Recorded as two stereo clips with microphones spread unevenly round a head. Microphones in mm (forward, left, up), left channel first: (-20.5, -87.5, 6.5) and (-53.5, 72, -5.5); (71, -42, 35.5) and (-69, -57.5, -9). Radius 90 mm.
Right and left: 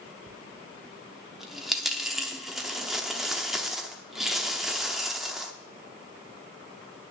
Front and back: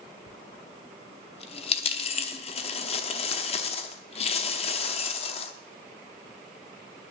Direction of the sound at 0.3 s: 10° left.